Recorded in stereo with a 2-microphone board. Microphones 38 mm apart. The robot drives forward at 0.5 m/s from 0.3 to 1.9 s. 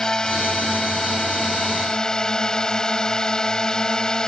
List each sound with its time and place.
0.0 s a drone: 15° left (ahead or behind)